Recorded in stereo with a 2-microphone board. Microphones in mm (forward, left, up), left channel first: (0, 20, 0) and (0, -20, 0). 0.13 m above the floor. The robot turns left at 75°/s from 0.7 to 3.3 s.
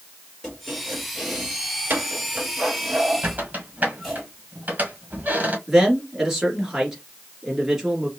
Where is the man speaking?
10° right (ahead or behind), 2 m.